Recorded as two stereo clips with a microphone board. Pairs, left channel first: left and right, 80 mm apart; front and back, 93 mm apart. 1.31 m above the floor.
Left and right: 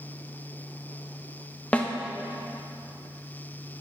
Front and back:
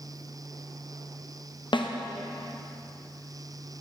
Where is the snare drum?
20° left, 0.8 m.